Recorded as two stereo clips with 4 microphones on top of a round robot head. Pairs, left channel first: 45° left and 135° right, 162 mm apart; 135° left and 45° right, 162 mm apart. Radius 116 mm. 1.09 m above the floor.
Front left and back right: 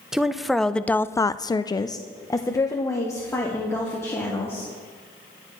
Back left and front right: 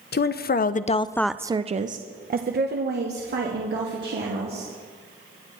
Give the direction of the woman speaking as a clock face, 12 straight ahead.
7 o'clock.